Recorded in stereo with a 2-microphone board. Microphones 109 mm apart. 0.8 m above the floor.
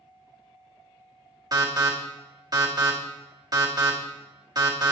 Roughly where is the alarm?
Right.